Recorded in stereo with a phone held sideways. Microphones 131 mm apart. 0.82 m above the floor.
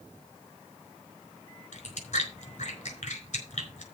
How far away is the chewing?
About 4.5 m.